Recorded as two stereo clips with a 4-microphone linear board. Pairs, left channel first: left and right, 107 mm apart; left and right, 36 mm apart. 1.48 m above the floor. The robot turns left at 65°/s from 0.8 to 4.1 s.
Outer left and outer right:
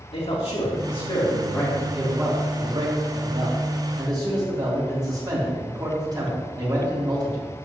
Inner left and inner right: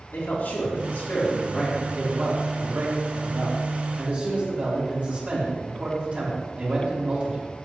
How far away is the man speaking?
About 4.5 m.